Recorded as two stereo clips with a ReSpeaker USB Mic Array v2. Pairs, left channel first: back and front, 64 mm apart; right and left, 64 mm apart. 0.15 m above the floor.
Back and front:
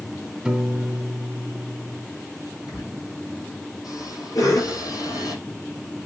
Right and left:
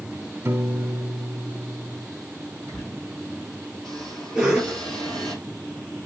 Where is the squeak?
170° right, 4 m.